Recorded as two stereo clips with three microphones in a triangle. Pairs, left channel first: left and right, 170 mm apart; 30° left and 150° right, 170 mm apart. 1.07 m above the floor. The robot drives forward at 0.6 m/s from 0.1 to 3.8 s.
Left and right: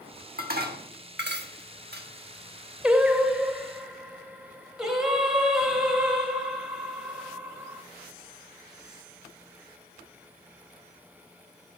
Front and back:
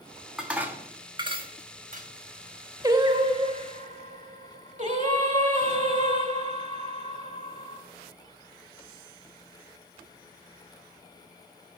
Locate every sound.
0.4 s dishes clattering: 65° right, 1.3 m; by 2.1 s 110° right, 1.3 m
2.8 s singing: 165° right, 0.8 m; by 7.8 s 175° right, 1.2 m